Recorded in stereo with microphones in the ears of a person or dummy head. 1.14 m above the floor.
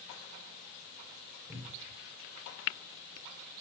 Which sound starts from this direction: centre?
A cupboard door, at 1.5 s.